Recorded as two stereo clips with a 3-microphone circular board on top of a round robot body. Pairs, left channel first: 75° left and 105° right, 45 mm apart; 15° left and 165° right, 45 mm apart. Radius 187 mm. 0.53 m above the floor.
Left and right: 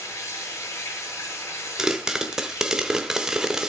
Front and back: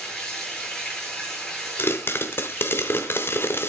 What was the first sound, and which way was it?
Running water, 95° left.